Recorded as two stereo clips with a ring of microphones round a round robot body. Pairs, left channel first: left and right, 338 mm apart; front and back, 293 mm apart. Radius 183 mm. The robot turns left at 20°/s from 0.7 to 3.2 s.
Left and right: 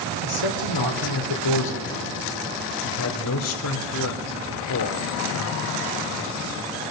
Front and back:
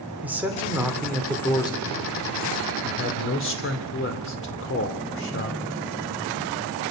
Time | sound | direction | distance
0.2 | a man speaking | 95° left | 3 m